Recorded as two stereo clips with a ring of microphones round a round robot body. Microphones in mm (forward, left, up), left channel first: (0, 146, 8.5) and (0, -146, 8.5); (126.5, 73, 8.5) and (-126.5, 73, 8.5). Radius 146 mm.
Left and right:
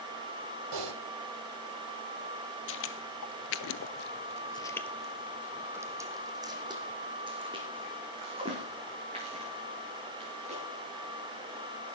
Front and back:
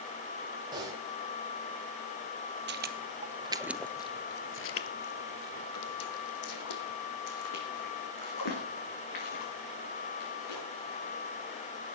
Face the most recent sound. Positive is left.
turn(degrees=-20)